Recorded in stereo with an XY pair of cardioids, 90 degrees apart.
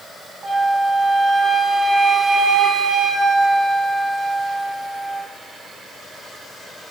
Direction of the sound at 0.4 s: 40° right.